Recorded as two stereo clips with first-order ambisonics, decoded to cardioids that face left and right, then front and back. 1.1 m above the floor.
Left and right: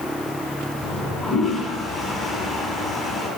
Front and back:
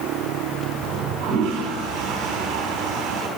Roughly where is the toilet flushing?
Behind.